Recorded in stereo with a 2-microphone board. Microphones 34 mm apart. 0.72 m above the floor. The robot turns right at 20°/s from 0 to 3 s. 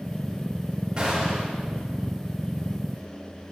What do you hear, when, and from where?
1.0 s a gunshot: 25° right (ahead or behind), 3 m; by 1.5 s 15° right (ahead or behind), 3 m